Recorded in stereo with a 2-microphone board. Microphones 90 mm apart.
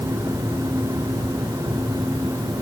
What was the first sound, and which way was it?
Only background noise.